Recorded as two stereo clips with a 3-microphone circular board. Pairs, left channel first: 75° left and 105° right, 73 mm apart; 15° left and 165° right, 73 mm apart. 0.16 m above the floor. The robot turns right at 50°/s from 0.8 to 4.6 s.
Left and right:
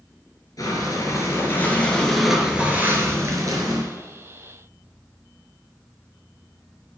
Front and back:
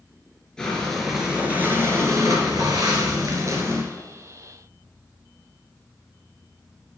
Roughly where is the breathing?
Left.